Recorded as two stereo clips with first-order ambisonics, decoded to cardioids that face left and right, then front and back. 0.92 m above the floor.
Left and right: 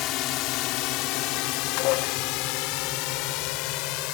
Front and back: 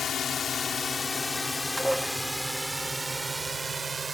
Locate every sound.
0.0 s a drone: 60° left; by 4.1 s 105° left
1.8 s dishes clattering: 95° left